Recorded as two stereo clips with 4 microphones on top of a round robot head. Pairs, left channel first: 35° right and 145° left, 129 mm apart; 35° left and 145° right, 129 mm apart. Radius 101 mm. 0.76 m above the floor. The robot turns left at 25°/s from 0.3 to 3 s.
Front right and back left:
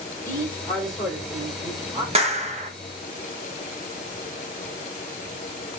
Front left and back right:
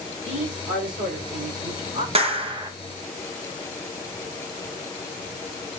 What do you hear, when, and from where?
0.2 s a man speaking: 110° right, 3 m; by 2.0 s 150° right, 3 m
2.1 s a clap: straight behind, 1.1 m; by 2.7 s 165° left, 1.1 m